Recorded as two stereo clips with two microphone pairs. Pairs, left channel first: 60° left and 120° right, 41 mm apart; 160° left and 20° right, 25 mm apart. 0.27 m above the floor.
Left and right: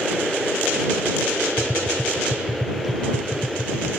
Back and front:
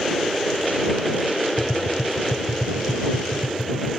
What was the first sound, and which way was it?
Tapping, 145° left.